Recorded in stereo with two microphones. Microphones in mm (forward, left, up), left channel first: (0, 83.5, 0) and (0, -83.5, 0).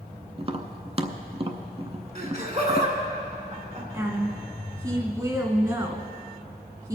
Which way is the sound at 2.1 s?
45° right (ahead or behind).